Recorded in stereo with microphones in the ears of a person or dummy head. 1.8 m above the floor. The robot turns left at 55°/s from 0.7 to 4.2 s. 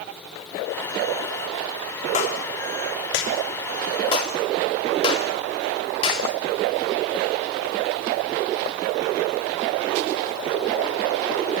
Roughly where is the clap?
Left.